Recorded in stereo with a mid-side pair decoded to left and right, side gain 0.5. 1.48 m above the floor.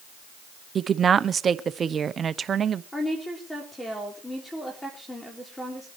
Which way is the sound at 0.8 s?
40° right.